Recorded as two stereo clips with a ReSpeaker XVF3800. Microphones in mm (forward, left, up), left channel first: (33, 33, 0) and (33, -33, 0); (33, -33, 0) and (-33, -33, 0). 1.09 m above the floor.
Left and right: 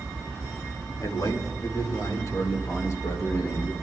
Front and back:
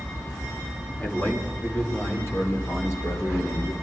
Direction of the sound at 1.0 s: 70° left.